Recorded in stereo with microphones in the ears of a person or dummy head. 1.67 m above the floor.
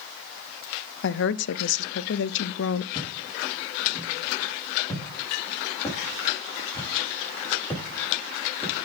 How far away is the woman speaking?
About 0.6 m.